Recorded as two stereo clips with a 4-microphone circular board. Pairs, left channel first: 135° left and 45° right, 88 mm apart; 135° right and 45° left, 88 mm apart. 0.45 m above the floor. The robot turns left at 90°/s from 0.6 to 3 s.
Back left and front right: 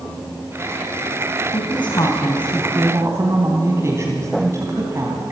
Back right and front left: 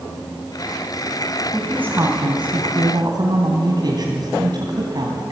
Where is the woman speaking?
140° left, 3 m; by 5.3 s 10° left, 3 m.